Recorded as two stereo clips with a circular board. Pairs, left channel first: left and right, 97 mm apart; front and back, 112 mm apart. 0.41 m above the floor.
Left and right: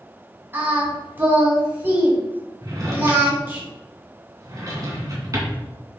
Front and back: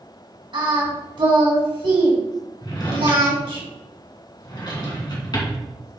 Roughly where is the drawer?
Ahead right.